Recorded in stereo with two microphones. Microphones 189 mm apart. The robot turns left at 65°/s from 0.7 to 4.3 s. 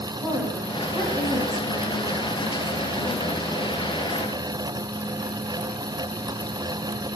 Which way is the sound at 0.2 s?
170° right.